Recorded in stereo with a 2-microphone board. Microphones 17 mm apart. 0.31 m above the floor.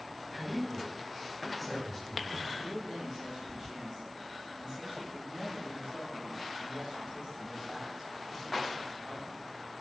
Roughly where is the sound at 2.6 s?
Right.